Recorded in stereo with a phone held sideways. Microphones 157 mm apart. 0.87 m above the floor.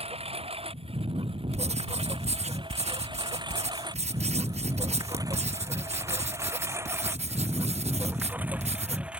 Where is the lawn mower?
40° right (ahead or behind); by 9.2 s 5° right (ahead or behind).